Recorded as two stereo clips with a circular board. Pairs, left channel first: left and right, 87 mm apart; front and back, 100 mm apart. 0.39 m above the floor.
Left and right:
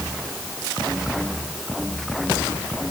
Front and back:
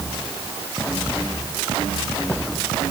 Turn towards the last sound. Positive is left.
No sound to turn to.